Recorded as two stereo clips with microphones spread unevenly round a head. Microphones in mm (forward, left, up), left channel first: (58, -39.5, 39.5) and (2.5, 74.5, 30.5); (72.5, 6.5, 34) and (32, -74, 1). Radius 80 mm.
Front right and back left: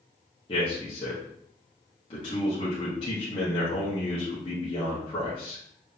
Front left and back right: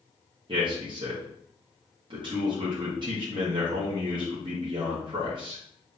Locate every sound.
0.5 s a man speaking: 120° right, 1.5 m